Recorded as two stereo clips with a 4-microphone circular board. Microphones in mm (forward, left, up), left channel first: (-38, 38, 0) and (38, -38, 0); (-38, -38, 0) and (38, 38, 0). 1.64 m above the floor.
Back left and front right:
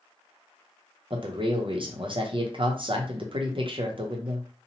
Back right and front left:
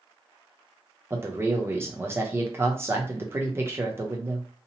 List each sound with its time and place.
1.1 s a man speaking: 20° right, 0.7 m